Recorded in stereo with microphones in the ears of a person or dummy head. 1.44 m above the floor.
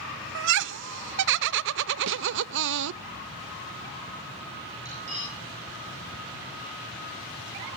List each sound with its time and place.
0.3 s laughter: 60° right (ahead or behind), 0.6 m
2.1 s a snare drum: 65° right (ahead or behind), 1.0 m
4.8 s cutlery clinking: 35° right (ahead or behind), 7 m